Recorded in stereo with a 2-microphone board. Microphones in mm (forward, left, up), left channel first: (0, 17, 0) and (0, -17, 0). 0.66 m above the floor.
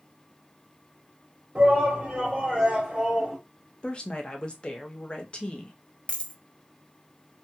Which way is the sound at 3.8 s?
30° left (ahead or behind).